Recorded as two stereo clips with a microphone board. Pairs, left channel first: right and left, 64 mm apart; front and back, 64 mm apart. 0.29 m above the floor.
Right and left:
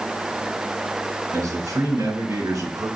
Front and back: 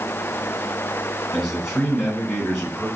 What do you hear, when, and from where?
1.3 s a man speaking: 90° left, 3.5 m